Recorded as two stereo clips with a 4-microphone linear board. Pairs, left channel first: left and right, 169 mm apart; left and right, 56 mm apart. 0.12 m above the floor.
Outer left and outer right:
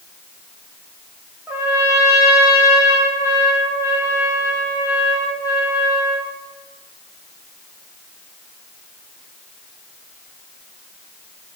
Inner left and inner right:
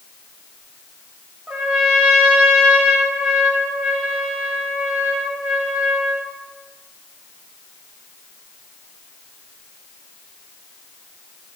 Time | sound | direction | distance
1.5 | a trumpet | 10° right (ahead or behind) | 4.5 m